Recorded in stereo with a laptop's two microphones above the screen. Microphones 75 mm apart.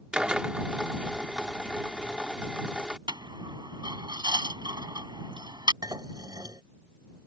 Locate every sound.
0.1 s a drill: 15° right (ahead or behind)
3.1 s a dropped coin: 75° right (ahead or behind)
5.8 s dishes clattering: 65° right (ahead or behind)